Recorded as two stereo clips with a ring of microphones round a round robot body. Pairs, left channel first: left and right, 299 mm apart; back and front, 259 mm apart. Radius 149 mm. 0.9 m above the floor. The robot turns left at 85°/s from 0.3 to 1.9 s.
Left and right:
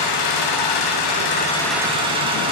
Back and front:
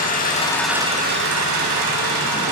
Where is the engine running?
120° left, 6.5 m; by 2.5 s 15° right, 6.5 m.